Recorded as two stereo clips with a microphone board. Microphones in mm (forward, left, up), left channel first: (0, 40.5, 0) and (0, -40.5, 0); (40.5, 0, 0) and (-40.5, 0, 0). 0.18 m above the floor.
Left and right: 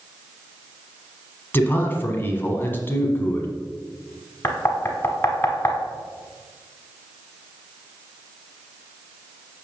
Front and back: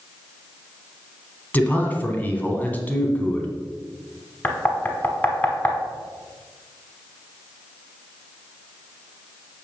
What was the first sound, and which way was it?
A man speaking, 50° left.